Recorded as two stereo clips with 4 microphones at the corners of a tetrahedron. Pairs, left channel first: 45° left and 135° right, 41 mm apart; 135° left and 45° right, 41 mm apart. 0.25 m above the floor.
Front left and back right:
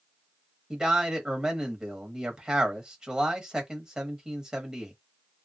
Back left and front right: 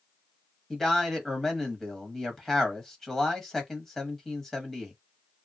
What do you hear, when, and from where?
0.7 s a man speaking: 160° right, 1.2 m